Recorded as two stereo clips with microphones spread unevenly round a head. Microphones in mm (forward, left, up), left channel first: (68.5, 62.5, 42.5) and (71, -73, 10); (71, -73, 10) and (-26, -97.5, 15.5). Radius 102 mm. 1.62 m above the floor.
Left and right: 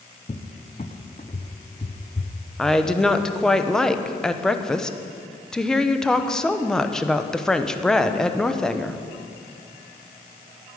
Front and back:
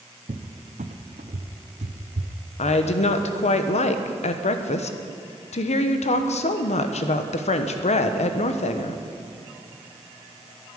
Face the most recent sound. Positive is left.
turn(degrees=10)